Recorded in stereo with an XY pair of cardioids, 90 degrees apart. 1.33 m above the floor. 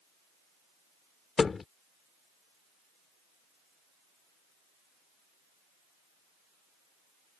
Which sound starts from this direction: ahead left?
A thud, at 1.4 s.